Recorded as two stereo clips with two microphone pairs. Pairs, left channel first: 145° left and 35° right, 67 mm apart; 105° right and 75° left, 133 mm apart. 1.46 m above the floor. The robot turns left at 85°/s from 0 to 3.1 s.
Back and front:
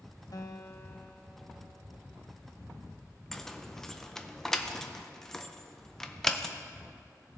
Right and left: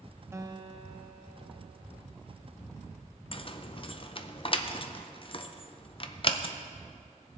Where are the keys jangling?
130° right, 0.5 m.